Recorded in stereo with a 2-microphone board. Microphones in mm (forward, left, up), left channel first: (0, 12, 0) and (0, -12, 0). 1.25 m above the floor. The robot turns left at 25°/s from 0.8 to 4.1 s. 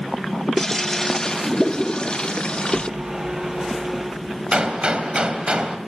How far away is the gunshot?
About 3 m.